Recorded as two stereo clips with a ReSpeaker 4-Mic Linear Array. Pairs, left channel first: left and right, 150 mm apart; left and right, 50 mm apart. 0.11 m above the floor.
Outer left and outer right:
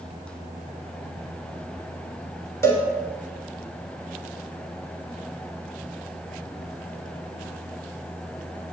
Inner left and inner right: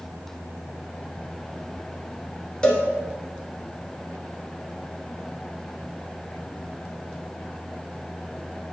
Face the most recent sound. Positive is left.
turn(degrees=15)  # may be behind; listen again after turning